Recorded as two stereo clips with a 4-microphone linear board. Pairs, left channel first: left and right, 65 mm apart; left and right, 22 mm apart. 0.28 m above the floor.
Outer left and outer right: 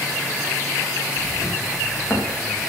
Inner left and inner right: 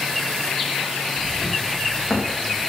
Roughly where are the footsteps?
Left.